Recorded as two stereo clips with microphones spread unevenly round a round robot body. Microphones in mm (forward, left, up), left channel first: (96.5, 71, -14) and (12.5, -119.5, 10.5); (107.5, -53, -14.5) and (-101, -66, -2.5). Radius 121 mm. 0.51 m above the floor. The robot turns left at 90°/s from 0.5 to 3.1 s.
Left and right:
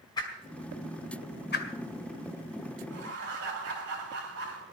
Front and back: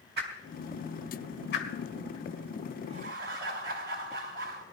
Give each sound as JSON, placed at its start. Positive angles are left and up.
{"t": 0.2, "sound": "a whoosh", "azimuth_deg": 135, "distance_m": 2.0}
{"t": 2.9, "sound": "laughter", "azimuth_deg": -115, "distance_m": 3.5}